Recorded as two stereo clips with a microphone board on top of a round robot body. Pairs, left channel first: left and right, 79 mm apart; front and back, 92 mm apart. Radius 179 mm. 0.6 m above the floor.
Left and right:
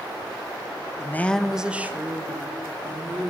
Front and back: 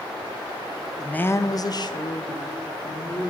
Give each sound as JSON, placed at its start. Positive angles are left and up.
{"t": 1.0, "sound": "a woman speaking", "azimuth_deg": 80, "distance_m": 0.7}